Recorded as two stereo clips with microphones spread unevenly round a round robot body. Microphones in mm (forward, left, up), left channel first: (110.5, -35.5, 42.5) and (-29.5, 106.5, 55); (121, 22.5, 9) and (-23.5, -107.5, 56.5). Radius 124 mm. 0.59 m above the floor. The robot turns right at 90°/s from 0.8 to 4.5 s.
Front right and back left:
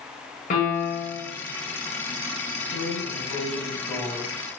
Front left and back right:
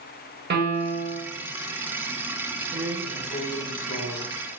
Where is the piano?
100° right, 1.1 m; by 1.2 s 65° right, 1.1 m.